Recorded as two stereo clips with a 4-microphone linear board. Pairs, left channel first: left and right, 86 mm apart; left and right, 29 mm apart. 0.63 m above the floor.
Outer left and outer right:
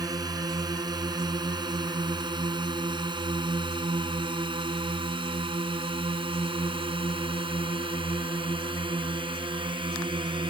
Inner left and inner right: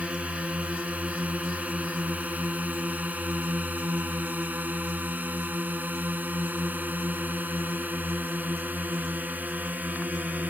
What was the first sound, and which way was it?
A drone, 50° right (ahead or behind).